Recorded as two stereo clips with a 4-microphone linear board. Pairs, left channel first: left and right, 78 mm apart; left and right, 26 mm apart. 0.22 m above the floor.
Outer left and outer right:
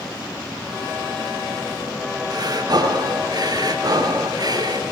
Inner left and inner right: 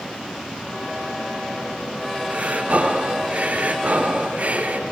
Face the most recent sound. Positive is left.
turn(degrees=-55)  # may be behind; listen again after turning